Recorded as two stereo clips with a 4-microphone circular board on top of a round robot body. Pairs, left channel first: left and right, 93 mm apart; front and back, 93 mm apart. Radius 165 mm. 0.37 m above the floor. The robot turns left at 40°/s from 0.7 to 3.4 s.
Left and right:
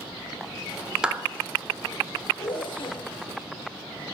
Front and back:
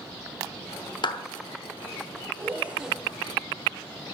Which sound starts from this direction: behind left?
A zipper, at 2.4 s.